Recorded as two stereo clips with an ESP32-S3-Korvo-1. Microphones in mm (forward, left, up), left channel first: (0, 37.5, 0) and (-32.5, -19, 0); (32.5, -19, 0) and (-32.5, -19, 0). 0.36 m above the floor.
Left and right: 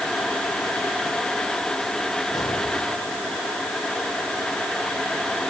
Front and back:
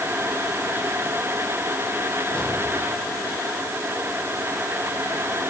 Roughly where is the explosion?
Left.